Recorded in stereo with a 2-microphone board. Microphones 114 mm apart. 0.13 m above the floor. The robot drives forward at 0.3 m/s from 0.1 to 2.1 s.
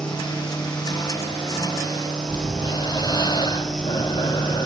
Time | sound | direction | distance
2.3 | breathing | 40° left (ahead or behind) | 0.8 m